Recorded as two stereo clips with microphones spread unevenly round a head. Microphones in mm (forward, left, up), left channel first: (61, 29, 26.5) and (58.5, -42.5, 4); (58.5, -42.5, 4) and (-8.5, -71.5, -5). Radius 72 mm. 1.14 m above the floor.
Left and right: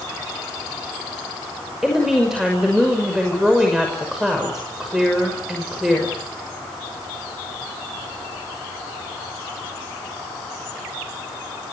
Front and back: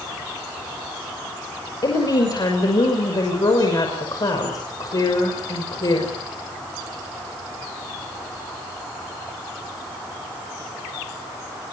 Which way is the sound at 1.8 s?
10° right.